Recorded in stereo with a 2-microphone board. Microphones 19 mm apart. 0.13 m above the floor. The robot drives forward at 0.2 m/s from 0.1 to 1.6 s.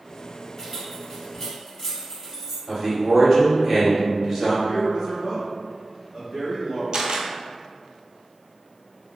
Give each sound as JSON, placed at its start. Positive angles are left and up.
{"t": 0.6, "sound": "keys jangling", "side_deg": 15, "distance_m": 1.8}
{"t": 2.7, "sound": "a man speaking", "side_deg": -20, "distance_m": 1.9}
{"t": 4.7, "sound": "a man speaking", "side_deg": -20, "distance_m": 1.9}
{"t": 6.9, "sound": "a camera shutter", "side_deg": -65, "distance_m": 0.6}